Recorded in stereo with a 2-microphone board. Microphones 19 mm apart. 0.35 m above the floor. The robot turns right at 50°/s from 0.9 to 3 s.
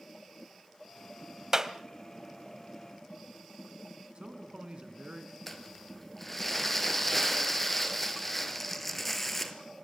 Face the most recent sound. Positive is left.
turn(degrees=10)  # may be behind; listen again after turning